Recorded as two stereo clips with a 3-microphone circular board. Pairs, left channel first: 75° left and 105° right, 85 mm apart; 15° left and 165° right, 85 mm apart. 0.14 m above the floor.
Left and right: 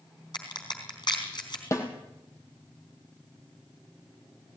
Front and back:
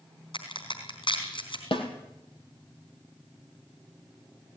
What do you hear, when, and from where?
0.3 s a crack: 40° left, 4 m
1.7 s a snare drum: 20° left, 3 m